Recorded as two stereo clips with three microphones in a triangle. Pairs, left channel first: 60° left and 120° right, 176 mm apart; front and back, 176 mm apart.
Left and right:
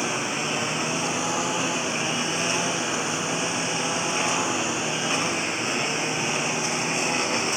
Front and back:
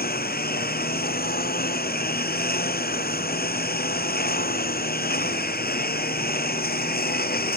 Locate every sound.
0.0 s a lawn mower: 30° right